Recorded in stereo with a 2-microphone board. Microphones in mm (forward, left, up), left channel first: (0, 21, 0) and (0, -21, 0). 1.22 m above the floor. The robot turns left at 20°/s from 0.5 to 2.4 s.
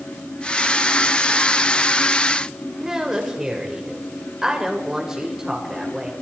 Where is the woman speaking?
15° right (ahead or behind), 6 m.